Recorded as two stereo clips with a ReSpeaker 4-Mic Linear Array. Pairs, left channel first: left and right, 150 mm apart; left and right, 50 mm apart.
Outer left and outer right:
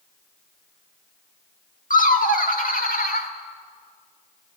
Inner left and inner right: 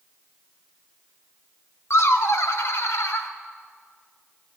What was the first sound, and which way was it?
Laughter, 60° left (ahead or behind).